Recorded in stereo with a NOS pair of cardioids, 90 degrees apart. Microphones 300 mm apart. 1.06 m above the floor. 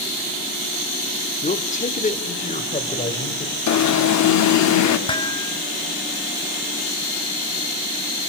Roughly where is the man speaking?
Ahead left.